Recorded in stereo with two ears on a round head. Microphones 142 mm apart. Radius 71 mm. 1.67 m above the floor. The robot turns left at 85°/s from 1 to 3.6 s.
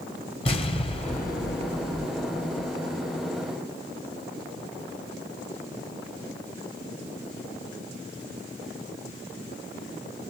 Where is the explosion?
145° left, 1.0 m; by 2.7 s straight ahead, 1.0 m.